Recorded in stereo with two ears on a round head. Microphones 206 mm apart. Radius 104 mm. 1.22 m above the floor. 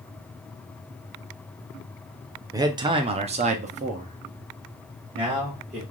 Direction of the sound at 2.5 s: 15° right (ahead or behind).